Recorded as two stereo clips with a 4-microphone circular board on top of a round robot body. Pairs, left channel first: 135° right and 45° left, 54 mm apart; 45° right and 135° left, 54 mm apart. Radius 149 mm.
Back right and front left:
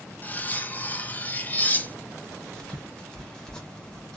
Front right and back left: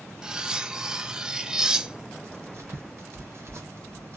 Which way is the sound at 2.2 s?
150° left.